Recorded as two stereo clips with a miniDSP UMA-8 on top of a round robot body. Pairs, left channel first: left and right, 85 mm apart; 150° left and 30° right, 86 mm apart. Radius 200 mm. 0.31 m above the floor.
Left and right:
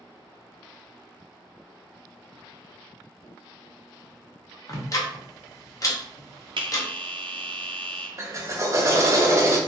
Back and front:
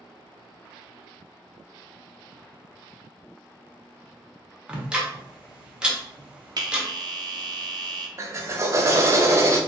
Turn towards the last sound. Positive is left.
turn(degrees=-60)